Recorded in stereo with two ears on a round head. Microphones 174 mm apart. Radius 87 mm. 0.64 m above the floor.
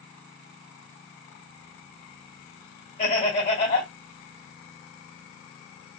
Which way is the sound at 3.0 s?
35° left (ahead or behind).